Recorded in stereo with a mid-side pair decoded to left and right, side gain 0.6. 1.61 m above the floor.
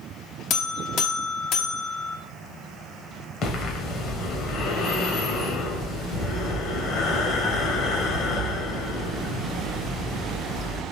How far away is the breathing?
About 1.4 m.